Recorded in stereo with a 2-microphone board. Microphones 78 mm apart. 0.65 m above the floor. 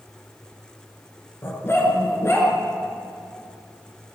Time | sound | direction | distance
1.4 | a dog barking | 30° left (ahead or behind) | 4 m